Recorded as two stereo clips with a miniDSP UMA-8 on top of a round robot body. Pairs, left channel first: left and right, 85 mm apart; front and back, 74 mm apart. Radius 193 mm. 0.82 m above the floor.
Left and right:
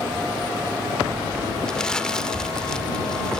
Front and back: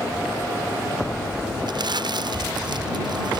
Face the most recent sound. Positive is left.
turn(degrees=170)